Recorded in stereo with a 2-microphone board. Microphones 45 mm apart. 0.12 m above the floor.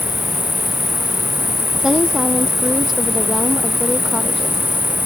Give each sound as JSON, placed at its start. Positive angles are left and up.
{"t": 0.0, "sound": "an insect", "side_deg": -50}
{"t": 1.8, "sound": "a woman speaking", "side_deg": -10}